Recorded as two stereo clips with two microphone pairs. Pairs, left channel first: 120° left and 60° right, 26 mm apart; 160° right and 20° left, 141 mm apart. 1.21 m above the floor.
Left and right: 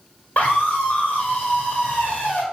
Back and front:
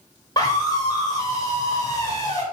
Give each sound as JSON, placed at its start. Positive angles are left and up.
{"t": 0.4, "sound": "a scream", "azimuth_deg": 135, "distance_m": 3.0}